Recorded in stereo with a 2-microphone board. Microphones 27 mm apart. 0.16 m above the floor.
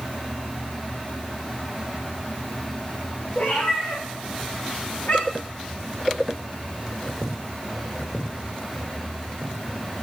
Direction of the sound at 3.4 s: 75° left (ahead or behind).